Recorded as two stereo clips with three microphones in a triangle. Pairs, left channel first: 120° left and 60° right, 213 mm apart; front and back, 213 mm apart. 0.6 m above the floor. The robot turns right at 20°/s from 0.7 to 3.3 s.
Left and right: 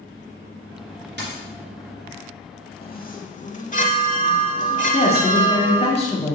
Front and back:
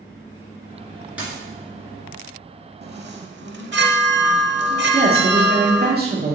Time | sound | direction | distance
1.2 | a dropped coin | 95° right | 2.5 m
2.8 | a chime | 155° left | 0.7 m
4.9 | a woman speaking | 170° left | 1.7 m